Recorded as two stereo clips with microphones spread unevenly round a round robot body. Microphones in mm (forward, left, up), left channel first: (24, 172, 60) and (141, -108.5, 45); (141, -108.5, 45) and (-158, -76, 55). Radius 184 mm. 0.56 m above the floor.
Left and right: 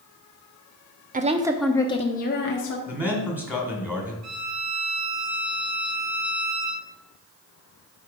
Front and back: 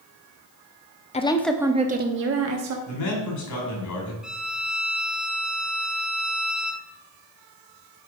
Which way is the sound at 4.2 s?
100° right.